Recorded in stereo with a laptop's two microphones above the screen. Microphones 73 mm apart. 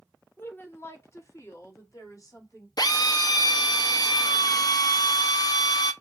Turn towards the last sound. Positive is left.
turn(degrees=60)  # may be behind; listen again after turning